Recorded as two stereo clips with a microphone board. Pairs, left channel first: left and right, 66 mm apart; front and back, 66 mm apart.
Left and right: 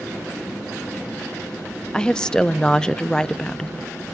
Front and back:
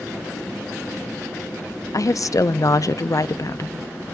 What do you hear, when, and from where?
1.9 s a woman speaking: 15° left, 0.5 m